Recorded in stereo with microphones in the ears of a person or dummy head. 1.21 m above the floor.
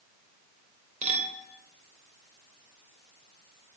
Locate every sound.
1.0 s a clink: 40° right (ahead or behind), 2.5 m